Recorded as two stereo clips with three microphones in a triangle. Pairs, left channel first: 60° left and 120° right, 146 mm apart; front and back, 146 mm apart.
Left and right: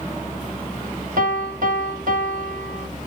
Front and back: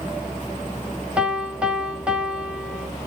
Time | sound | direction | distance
1.2 | a piano | 95° right | 2.5 m